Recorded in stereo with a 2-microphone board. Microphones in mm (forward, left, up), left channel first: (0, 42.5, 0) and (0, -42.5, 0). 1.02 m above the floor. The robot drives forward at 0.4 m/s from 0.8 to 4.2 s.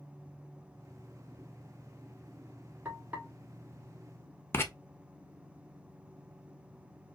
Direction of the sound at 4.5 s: 30° left (ahead or behind).